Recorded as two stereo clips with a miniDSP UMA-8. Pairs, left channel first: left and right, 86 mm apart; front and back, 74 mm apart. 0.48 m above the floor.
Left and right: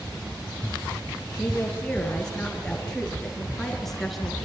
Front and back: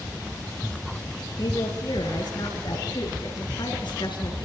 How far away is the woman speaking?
About 9.5 m.